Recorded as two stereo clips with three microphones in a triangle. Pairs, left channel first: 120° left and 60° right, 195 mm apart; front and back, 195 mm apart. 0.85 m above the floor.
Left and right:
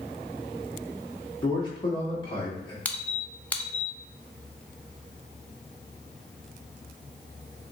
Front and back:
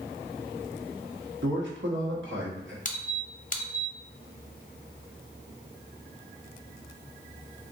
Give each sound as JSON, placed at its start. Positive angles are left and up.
{"t": 1.4, "sound": "a man speaking", "azimuth_deg": -175, "distance_m": 1.1}
{"t": 2.9, "sound": "a squeak", "azimuth_deg": 35, "distance_m": 0.5}